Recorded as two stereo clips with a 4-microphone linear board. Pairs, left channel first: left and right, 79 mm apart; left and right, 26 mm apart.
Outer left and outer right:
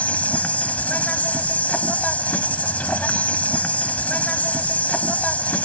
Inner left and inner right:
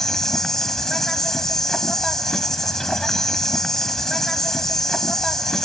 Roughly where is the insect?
Centre.